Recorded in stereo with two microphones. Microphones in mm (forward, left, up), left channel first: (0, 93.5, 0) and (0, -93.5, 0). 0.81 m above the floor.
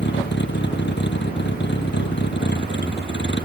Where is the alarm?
I don't hear an alarm.